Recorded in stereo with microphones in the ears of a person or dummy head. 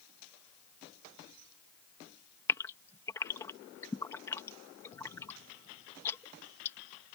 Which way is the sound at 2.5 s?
15° left (ahead or behind).